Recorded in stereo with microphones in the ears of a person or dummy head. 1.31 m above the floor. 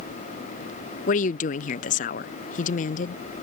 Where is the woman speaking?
40° left (ahead or behind).